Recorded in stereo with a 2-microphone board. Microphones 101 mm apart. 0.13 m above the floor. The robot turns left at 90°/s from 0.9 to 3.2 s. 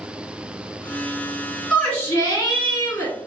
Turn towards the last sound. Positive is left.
turn(degrees=45)